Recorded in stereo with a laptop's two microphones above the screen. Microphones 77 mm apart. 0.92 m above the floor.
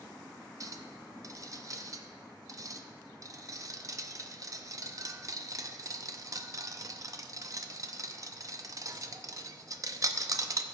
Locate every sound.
0.6 s a clink: 45° right (ahead or behind), 0.6 m